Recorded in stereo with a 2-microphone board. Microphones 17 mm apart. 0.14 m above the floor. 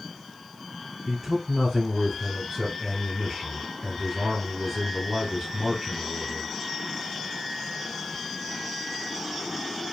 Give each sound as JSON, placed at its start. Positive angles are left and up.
{"t": 1.1, "sound": "a man speaking", "side_deg": -10, "distance_m": 1.8}